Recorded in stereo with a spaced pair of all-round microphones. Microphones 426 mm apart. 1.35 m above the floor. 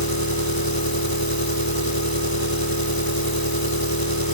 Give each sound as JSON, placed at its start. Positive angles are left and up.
{"t": 0.0, "sound": "an engine running", "side_deg": 50}